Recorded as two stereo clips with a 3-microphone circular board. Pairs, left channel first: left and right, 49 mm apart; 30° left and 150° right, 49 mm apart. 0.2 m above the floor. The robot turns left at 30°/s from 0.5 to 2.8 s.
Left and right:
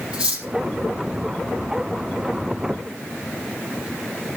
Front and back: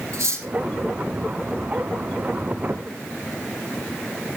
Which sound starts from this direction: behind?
Cutlery clinking, at 0.1 s.